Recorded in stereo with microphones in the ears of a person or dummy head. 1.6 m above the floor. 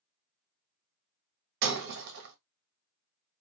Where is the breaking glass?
55° right (ahead or behind), 1.4 m.